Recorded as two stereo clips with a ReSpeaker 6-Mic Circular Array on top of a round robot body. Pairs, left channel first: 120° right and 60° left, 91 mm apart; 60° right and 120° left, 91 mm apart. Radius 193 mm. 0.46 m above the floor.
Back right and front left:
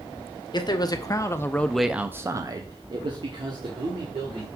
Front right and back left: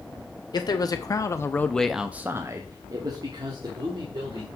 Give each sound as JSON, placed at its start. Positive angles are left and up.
{"t": 0.5, "sound": "a man speaking", "azimuth_deg": -90, "distance_m": 1.4}